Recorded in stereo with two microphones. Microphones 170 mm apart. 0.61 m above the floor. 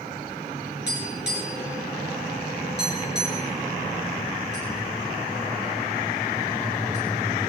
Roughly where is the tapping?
Left.